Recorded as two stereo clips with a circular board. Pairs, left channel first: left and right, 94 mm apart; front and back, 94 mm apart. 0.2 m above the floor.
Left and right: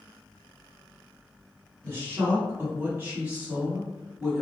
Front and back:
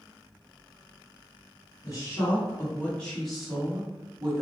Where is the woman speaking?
35° right, 1.4 m; by 4.4 s 170° right, 1.1 m.